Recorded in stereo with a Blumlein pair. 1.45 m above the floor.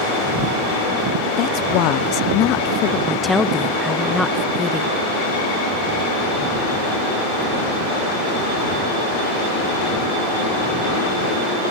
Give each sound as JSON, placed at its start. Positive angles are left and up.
{"t": 1.4, "sound": "a woman speaking", "azimuth_deg": 40}
{"t": 3.1, "sound": "a woman speaking", "azimuth_deg": 10}